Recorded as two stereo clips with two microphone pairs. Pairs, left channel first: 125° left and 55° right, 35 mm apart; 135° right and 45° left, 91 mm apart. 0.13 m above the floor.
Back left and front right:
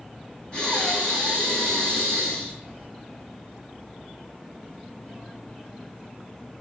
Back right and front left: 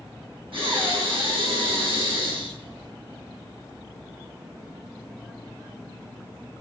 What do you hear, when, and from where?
0.5 s breathing: 60° left, 3 m